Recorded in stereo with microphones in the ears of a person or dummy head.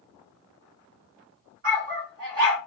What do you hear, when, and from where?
1.6 s a dog barking: 40° right (ahead or behind), 1.7 m